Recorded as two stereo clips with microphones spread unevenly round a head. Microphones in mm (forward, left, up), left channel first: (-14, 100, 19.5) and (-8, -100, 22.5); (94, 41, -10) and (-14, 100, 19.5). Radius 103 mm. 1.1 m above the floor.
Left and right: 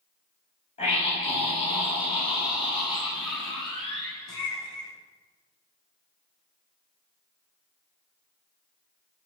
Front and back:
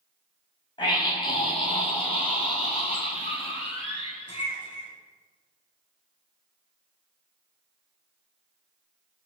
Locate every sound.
0.8 s a scream: 25° left, 8 m; by 4.9 s 20° left, 11.5 m